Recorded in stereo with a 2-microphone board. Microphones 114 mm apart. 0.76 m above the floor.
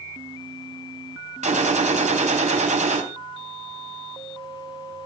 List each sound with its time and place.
1.4 s a gunshot: 80° right, 3 m